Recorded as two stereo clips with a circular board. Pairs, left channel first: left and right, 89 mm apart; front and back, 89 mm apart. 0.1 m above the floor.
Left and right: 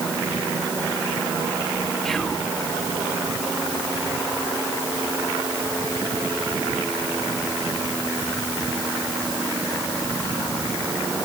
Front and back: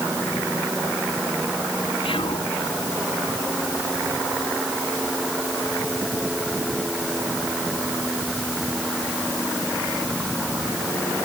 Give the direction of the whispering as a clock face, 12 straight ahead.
12 o'clock.